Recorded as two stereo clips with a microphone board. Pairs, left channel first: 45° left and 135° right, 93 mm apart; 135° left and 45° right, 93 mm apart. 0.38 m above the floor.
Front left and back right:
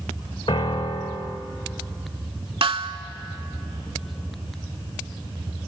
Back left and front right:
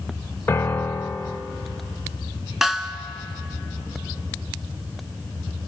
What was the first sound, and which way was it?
A piano, 70° left.